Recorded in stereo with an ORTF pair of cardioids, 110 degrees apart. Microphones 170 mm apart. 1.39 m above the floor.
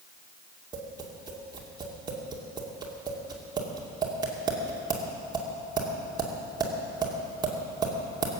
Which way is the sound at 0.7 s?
25° right.